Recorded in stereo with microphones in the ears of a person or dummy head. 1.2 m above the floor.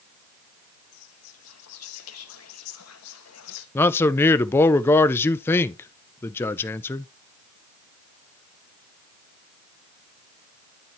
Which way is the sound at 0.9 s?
80° left.